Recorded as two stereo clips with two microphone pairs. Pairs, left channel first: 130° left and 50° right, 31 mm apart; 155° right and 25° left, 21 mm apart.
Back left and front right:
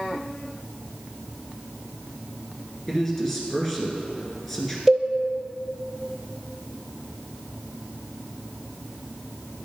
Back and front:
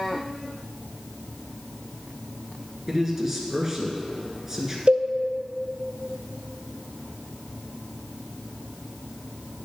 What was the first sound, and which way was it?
A man speaking, 70° left.